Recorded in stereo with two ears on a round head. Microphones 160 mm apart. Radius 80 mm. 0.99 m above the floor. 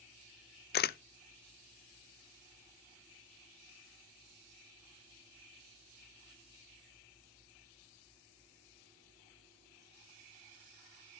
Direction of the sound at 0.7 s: 55° left (ahead or behind).